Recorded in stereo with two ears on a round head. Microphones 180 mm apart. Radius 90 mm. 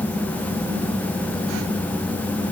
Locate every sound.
Only background noise.